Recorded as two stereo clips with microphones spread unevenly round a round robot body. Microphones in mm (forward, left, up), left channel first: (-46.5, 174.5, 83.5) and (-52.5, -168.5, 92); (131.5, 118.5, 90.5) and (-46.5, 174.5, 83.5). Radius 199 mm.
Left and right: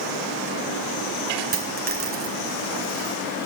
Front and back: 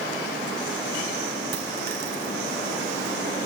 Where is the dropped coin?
155° right, 2.5 m.